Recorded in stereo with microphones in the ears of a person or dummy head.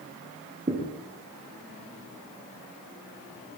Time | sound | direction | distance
0.7 | a thud | 25° right (ahead or behind) | 5.5 m